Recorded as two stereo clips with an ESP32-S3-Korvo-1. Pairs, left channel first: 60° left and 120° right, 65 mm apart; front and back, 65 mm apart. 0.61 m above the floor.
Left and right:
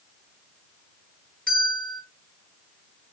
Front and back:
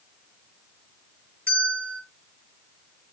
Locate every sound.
1.5 s a bell: 130° left, 6 m